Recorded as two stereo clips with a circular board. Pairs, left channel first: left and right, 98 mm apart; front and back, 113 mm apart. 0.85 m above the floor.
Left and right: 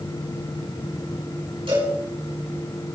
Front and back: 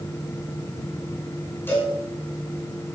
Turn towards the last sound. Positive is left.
turn(degrees=-70)